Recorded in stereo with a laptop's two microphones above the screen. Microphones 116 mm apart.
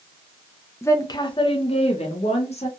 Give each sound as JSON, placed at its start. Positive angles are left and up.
{"t": 0.8, "sound": "a woman speaking", "side_deg": 20, "distance_m": 0.5}